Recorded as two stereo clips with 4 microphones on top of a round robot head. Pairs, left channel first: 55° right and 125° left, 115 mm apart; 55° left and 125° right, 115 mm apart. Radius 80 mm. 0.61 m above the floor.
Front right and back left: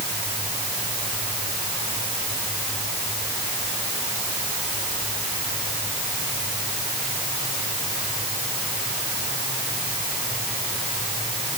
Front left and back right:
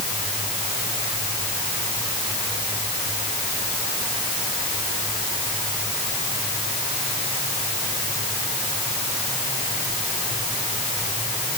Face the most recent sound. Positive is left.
No sound to turn to.